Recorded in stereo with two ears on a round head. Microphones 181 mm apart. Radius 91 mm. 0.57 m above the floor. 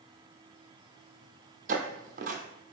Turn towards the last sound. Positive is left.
turn(degrees=-40)  # may be behind; listen again after turning